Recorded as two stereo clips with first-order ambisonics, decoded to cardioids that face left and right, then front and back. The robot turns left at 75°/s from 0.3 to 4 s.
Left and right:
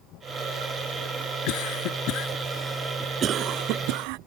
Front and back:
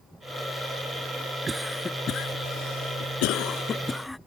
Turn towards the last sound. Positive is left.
turn(degrees=-85)